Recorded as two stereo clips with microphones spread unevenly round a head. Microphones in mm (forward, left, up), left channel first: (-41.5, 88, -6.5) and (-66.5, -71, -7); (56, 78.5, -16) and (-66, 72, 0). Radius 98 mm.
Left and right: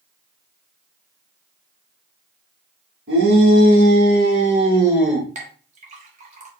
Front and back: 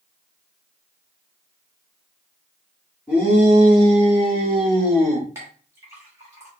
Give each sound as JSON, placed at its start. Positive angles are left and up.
{"t": 3.1, "sound": "a shout", "azimuth_deg": -95, "distance_m": 2.5}
{"t": 5.3, "sound": "a clink", "azimuth_deg": -120, "distance_m": 1.2}